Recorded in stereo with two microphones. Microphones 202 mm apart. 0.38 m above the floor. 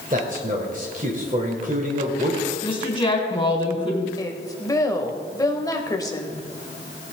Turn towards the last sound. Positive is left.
turn(degrees=20)  # may be behind; listen again after turning